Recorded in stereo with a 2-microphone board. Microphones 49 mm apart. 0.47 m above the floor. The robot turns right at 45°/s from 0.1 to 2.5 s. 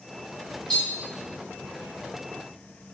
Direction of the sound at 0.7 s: 10° left (ahead or behind).